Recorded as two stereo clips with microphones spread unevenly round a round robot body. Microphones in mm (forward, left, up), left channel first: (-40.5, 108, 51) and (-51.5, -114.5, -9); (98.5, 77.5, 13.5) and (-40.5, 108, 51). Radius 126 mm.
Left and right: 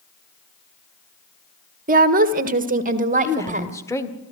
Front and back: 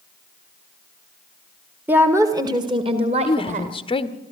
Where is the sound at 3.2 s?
Straight ahead, 1.4 m.